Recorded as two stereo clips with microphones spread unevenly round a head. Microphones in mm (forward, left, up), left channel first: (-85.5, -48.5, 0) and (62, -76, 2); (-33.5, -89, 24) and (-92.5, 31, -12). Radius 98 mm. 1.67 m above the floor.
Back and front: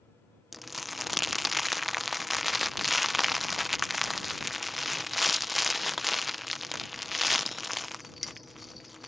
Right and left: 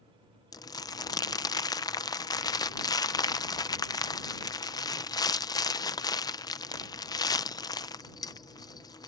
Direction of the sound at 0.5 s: 100° right.